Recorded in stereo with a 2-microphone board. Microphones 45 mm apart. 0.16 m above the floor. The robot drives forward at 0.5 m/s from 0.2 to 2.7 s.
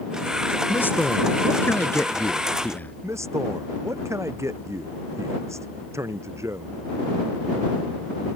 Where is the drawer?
I don't hear a drawer.